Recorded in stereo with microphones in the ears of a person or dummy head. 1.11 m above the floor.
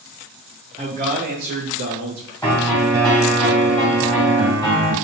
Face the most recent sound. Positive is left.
turn(degrees=15)  # may be behind; listen again after turning